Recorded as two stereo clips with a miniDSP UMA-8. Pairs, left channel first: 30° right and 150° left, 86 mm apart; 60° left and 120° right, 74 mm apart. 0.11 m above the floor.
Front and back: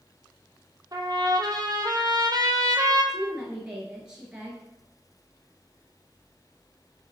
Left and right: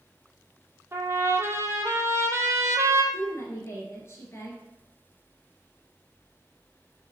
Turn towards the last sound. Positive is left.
turn(degrees=75)